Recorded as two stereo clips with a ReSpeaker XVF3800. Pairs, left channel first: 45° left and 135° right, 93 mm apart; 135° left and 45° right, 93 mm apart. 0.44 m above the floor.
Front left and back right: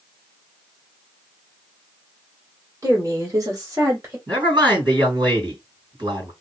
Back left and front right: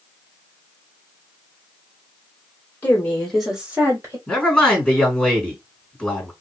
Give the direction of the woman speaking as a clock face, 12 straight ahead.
6 o'clock.